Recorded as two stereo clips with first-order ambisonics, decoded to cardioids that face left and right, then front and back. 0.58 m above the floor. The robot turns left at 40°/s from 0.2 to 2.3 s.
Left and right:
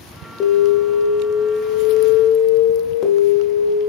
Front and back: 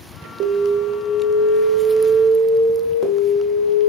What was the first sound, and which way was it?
An alarm, 135° left.